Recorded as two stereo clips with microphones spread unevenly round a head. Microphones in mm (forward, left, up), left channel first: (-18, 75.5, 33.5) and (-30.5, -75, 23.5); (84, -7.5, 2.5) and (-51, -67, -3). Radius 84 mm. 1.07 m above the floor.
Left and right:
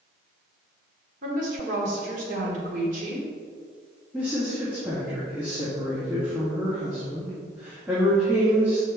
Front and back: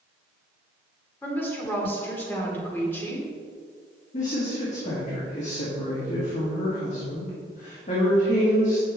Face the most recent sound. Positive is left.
turn(degrees=-15)